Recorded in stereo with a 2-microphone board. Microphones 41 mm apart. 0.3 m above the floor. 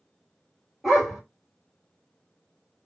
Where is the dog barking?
10° right (ahead or behind), 2.0 m.